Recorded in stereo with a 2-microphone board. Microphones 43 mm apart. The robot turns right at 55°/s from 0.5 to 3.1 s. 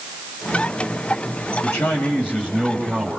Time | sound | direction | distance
1.6 | a man speaking | 110° left | 4.5 m